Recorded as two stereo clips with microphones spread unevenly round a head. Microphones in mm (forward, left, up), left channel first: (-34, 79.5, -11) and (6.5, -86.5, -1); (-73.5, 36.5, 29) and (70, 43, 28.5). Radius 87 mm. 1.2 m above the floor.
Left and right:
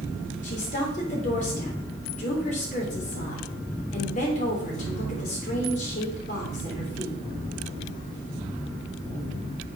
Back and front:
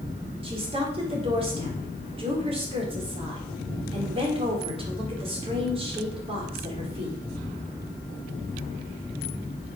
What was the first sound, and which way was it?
A woman speaking, 55° left.